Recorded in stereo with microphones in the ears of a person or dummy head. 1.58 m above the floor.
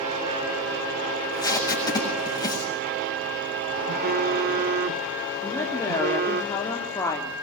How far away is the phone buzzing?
About 0.6 m.